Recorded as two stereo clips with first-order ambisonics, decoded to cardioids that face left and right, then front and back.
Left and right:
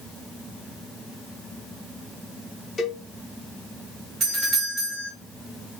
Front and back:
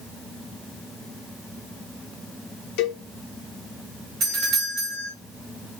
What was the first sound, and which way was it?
A cowbell, 15° left.